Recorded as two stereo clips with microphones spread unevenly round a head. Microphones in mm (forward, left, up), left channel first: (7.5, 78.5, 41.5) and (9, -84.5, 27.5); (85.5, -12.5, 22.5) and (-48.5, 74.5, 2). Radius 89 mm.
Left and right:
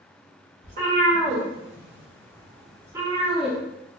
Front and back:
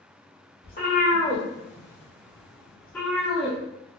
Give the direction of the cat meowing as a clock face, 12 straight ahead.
2 o'clock.